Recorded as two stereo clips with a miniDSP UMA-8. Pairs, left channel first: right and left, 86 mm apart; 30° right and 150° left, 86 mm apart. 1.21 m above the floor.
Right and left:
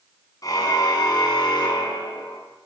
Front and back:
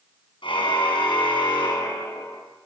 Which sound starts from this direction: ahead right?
A car horn, at 0.4 s.